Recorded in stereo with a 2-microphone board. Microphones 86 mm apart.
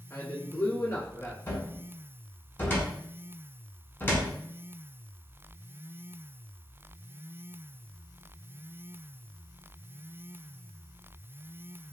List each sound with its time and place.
0.1 s a man speaking: 40° left (ahead or behind), 1.6 m
1.5 s a cupboard door: 25° left (ahead or behind), 0.9 m